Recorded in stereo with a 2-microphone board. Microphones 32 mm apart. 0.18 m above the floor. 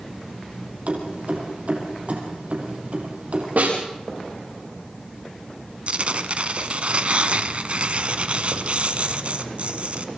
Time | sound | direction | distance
0.9 | keys jangling | 55° right (ahead or behind) | 4 m
3.6 | a snare drum | 75° right (ahead or behind) | 7 m
5.9 | tearing paper | 45° right (ahead or behind) | 1.0 m